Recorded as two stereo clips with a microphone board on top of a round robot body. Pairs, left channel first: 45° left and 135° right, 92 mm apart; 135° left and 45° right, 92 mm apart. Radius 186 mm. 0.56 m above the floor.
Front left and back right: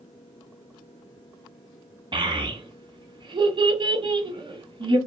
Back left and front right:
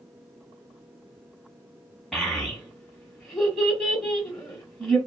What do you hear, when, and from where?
2.1 s a child speaking: 140° right, 1.1 m